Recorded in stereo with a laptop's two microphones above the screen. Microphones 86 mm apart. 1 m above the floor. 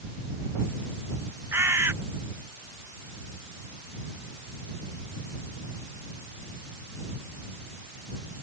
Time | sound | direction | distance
1.5 | a bird | 30° right (ahead or behind) | ?